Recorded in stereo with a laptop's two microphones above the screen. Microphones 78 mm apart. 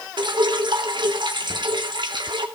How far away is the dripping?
About 2.5 m.